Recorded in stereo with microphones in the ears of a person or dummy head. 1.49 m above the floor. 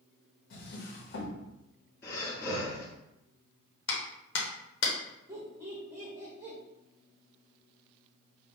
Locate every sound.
0.5 s a drawer: 50° left (ahead or behind), 1.1 m
2.0 s breathing: 25° left (ahead or behind), 1.7 m
3.9 s a clap: 70° left (ahead or behind), 1.1 m
5.3 s laughter: 15° right (ahead or behind), 1.4 m